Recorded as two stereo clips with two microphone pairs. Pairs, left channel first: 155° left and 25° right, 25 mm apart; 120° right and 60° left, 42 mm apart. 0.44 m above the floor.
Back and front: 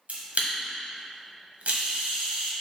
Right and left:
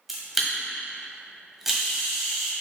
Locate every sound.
0.1 s a camera shutter: 20° right, 1.5 m